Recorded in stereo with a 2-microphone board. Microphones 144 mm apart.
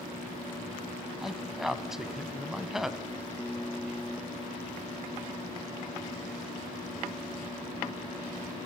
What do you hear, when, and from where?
1.2 s a man speaking: 5° right (ahead or behind), 1.0 m